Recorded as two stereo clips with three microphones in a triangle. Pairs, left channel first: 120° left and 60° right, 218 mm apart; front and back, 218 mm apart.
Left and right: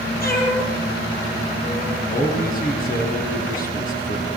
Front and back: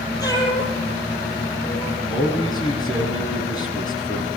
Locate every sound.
0.2 s a cat meowing: 75° left, 6 m
2.1 s a man speaking: 70° left, 7.5 m